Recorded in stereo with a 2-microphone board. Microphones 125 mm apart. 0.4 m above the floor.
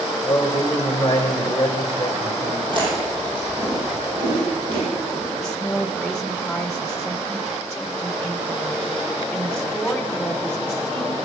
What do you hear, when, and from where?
0.2 s a man speaking: 30° left (ahead or behind), 2 m
2.7 s chewing: 40° right (ahead or behind), 6.5 m
5.4 s a woman speaking: 5° left (ahead or behind), 1.0 m